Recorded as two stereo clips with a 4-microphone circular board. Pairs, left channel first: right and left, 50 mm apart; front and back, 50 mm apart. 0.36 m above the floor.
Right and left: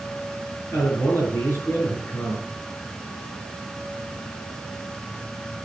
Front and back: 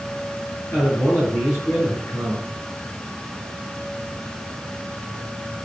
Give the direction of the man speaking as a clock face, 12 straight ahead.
1 o'clock.